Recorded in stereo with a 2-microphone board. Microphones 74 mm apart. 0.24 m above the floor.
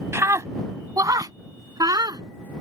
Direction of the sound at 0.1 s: 40° right (ahead or behind).